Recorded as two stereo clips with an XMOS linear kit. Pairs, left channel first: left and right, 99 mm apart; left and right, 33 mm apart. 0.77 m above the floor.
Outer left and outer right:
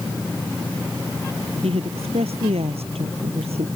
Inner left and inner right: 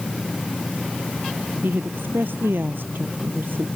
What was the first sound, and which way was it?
A woman speaking, 90° right.